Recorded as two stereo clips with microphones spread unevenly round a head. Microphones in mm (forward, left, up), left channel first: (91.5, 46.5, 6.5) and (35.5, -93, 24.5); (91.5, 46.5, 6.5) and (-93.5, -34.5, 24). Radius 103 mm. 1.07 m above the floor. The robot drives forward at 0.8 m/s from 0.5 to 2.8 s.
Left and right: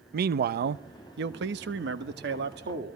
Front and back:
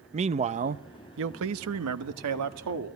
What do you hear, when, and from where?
0.1 s a man speaking: 95° right, 0.9 m; by 3.0 s 155° right, 2 m